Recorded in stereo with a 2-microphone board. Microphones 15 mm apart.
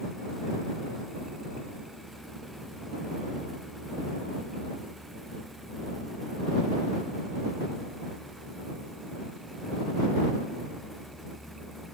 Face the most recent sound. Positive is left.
No sound to turn to.